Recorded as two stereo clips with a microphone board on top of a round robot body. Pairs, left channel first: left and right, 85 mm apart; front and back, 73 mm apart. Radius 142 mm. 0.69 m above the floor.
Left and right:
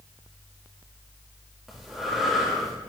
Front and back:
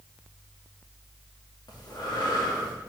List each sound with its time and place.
1.7 s breathing: 5° right, 2.5 m